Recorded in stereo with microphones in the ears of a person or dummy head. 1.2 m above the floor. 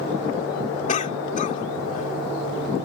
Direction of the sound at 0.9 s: 45° left (ahead or behind).